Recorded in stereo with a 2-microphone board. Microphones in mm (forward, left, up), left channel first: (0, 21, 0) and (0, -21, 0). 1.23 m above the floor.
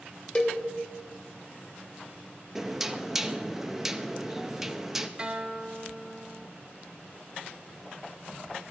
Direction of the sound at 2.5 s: 10° right (ahead or behind).